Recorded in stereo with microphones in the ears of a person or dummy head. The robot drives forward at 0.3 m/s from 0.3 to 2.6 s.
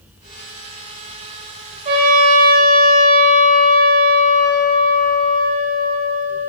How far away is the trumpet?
About 0.5 m.